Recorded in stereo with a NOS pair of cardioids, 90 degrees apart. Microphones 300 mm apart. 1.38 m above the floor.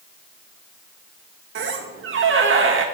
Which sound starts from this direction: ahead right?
A squeak, at 1.6 s.